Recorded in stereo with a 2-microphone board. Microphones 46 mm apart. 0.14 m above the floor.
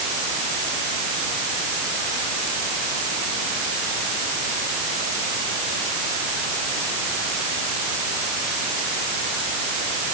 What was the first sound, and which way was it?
Only background noise.